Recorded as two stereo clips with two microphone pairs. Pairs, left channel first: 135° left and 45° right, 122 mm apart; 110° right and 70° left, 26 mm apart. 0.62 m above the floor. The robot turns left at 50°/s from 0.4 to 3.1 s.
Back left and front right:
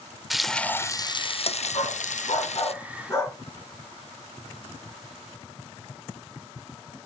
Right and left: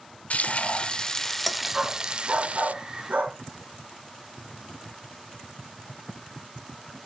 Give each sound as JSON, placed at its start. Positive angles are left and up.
{"t": 0.3, "sound": "frying", "azimuth_deg": -140, "distance_m": 0.6}
{"t": 1.7, "sound": "a dog barking", "azimuth_deg": 135, "distance_m": 1.8}